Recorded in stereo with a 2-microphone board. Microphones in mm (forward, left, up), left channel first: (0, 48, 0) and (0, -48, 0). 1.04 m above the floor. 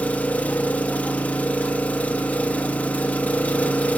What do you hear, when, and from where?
0.0 s an engine running: 15° left (ahead or behind), 1.0 m